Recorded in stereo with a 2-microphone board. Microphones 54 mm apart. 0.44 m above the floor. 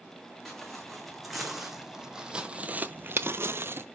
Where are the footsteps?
Centre (ahead or behind), 2.0 m; by 3.9 s 45° right (ahead or behind), 0.7 m.